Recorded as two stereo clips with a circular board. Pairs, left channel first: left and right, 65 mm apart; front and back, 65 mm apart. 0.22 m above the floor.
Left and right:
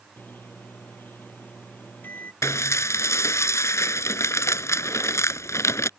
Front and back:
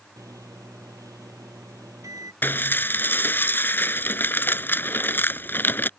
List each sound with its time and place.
0.2 s a microwave: 150° left
2.4 s dishes clattering: 55° left